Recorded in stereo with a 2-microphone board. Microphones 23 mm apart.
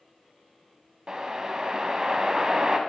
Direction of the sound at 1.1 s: 35° right (ahead or behind).